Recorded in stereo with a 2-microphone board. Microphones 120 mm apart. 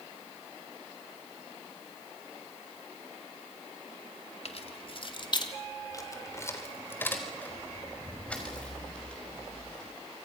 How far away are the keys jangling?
About 2 m.